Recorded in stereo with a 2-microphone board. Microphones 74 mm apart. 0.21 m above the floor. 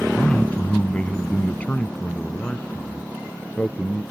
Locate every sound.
0.2 s a man speaking: 20° left (ahead or behind); by 4.0 s 15° left (ahead or behind)